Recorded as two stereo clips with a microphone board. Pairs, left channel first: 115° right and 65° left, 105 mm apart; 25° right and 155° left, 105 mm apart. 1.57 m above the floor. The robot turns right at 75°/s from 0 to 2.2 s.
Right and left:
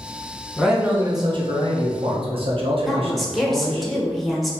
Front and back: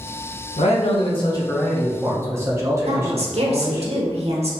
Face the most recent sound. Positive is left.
turn(degrees=160)